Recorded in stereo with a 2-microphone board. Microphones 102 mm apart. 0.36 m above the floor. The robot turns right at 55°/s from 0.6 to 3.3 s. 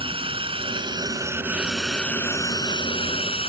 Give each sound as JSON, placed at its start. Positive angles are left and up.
{"t": 0.0, "sound": "a drone", "azimuth_deg": -65}